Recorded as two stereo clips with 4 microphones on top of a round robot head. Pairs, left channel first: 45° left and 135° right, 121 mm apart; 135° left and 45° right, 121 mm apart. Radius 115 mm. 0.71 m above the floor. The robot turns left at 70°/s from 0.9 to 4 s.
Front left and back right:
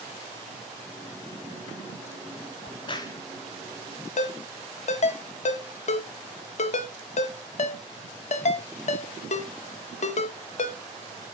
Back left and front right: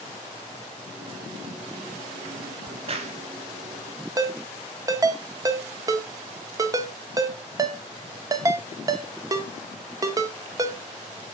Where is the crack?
15° left, 0.9 m; by 3.2 s 20° right, 0.9 m.